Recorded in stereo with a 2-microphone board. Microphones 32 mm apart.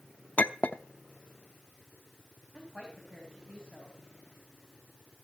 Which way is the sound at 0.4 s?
60° left (ahead or behind).